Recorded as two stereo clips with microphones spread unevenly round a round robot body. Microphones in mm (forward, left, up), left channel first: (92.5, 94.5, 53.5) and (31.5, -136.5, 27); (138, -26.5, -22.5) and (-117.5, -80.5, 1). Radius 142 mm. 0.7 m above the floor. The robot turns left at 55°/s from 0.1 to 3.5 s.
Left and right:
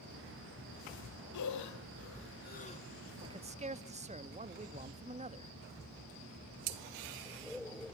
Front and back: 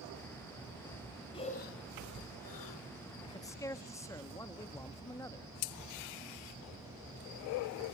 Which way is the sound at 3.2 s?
45° right.